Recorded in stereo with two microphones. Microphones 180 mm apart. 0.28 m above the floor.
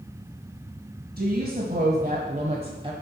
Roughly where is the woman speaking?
Right.